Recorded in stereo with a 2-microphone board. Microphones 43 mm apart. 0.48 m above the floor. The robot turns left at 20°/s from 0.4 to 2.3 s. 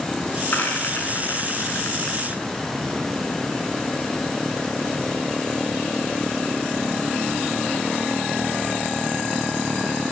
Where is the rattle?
50° left (ahead or behind), 4.5 m; by 2.4 s 80° left, 4.5 m.